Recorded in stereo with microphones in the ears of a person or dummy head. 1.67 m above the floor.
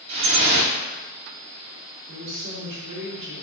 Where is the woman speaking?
60° right (ahead or behind), 1.2 m.